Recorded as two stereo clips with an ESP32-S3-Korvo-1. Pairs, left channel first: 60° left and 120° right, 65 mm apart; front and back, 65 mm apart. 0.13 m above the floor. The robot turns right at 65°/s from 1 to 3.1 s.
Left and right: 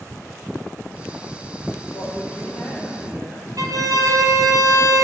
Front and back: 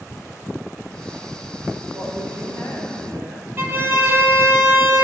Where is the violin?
130° right, 1.0 m.